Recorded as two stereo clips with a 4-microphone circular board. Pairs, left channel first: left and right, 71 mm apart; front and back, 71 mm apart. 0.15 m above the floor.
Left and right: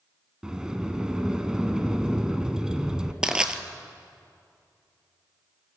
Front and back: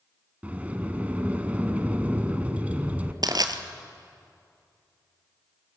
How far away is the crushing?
About 1.1 m.